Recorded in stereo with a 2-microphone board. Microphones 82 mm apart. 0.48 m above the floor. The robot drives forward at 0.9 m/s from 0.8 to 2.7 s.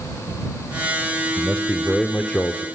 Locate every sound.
1.4 s a man speaking: 10° left (ahead or behind), 1.9 m; by 2.6 s 15° left (ahead or behind), 1.1 m